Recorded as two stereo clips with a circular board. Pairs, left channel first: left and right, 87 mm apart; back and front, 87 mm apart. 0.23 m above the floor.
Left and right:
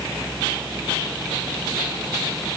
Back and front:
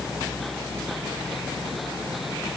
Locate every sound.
Only background noise.